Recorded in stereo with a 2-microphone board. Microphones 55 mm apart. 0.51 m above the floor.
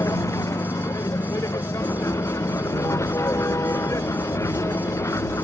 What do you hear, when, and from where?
0.0 s a vehicle: 65° left (ahead or behind); by 5.4 s 60° left (ahead or behind)
1.8 s writing: 65° left (ahead or behind)